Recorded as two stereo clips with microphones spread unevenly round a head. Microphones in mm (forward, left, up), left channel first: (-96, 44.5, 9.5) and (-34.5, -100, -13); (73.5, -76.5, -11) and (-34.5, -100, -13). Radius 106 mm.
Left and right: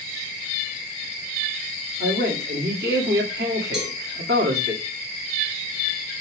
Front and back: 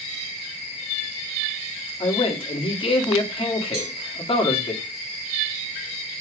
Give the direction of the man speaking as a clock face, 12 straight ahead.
1 o'clock.